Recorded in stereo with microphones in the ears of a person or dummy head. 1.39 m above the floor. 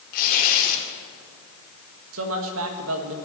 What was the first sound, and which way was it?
Tearing paper, 50° left (ahead or behind).